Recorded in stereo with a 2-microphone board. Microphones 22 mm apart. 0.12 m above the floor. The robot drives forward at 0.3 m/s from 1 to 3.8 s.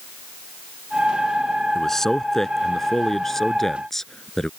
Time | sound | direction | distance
1.8 | a man speaking | 20° left (ahead or behind) | ?